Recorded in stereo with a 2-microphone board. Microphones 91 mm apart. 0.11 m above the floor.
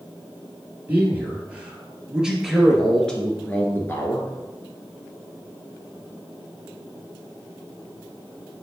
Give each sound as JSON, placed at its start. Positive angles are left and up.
{"t": 0.9, "sound": "a man speaking", "side_deg": -20, "distance_m": 2.5}